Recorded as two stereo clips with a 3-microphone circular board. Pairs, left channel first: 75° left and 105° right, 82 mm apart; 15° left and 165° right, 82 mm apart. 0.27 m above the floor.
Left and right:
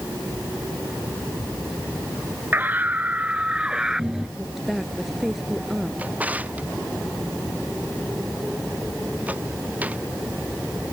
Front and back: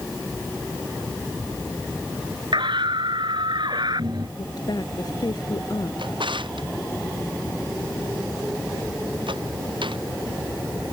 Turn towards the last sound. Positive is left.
turn(degrees=-175)